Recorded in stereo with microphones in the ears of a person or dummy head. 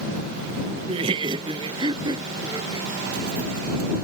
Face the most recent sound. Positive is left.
turn(degrees=-20)  # may be behind; listen again after turning